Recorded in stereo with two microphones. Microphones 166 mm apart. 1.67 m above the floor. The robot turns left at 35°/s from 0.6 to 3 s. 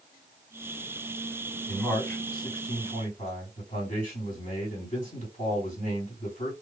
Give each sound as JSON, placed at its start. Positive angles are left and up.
{"t": 1.7, "sound": "a man speaking", "azimuth_deg": -175, "distance_m": 3.0}